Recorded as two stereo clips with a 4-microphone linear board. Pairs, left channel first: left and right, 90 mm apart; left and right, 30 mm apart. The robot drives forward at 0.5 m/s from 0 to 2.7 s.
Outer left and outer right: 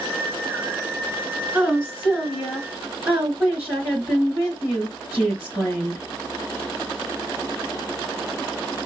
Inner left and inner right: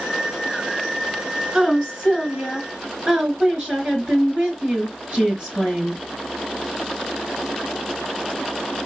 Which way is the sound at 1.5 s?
30° right (ahead or behind).